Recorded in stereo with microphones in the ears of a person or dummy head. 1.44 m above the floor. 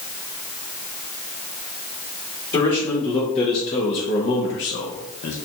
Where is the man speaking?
30° left (ahead or behind), 1.9 m; by 5.4 s 55° left (ahead or behind), 0.8 m.